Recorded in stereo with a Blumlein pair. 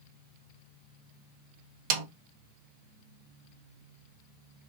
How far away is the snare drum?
About 0.9 m.